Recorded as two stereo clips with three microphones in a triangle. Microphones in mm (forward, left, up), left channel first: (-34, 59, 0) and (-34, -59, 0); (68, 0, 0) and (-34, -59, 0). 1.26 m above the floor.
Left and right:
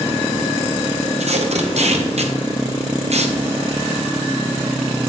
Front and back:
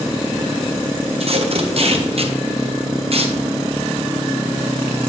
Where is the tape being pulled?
115° right, 0.9 m.